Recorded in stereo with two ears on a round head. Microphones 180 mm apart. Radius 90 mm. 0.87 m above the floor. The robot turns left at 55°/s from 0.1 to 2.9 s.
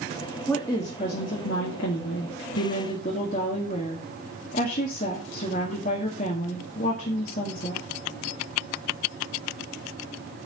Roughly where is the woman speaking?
Behind.